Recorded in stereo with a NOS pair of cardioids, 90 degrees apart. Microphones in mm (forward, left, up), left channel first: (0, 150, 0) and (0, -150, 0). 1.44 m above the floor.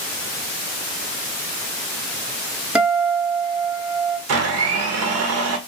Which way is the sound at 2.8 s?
5° right.